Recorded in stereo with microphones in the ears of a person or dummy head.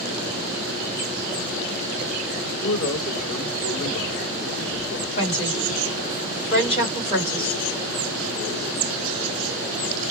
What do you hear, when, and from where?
2.4 s a man speaking: 30° left (ahead or behind), 2.5 m
5.2 s a woman speaking: 35° left (ahead or behind), 2.5 m